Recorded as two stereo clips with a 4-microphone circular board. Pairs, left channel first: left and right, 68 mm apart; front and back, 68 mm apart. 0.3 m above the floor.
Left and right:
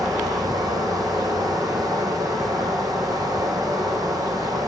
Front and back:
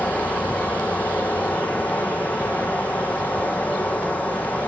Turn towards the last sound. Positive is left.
turn(degrees=-70)